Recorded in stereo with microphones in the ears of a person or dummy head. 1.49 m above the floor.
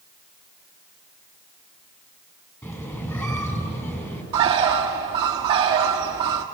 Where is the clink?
I don't hear a clink.